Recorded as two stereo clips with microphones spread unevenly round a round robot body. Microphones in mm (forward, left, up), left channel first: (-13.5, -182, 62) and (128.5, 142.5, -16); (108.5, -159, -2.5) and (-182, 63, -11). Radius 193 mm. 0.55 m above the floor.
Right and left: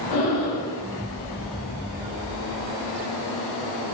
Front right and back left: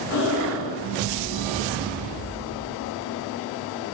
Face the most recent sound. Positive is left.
turn(degrees=-80)